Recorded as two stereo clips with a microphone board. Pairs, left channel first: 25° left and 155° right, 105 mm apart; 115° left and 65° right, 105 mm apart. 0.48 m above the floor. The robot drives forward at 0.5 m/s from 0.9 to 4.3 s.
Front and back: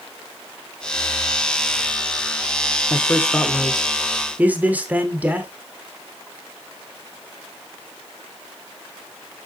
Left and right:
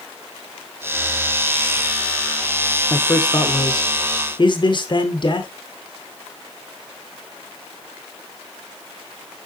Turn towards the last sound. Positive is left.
turn(degrees=130)